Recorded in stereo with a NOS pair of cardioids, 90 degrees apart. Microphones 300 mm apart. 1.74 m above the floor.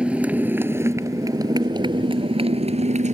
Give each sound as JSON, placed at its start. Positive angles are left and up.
{"t": 0.0, "sound": "a motorcycle", "azimuth_deg": -5}